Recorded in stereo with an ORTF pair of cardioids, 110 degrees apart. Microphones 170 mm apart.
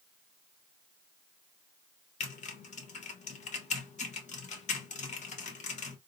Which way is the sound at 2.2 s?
45° left.